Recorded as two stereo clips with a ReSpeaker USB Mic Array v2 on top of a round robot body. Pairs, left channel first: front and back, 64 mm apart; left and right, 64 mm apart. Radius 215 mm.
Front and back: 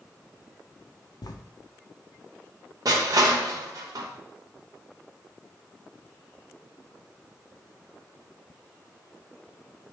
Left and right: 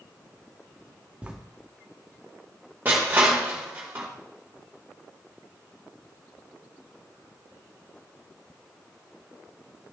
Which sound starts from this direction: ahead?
Writing, at 1.2 s.